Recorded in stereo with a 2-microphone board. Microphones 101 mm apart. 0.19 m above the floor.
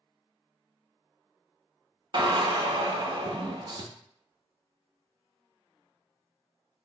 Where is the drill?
50° right (ahead or behind), 0.6 m.